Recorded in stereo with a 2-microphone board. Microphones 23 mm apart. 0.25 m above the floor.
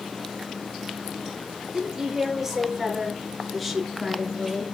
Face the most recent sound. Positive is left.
turn(degrees=5)  # may be behind; listen again after turning